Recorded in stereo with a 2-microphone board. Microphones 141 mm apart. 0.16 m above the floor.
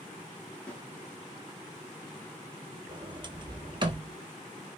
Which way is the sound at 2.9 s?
35° right (ahead or behind).